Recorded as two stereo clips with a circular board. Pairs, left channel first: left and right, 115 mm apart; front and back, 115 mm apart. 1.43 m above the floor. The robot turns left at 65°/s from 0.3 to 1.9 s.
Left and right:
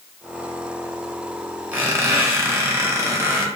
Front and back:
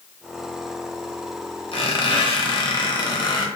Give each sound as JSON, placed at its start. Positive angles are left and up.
{"t": 1.7, "sound": "a squeak", "azimuth_deg": -15, "distance_m": 0.6}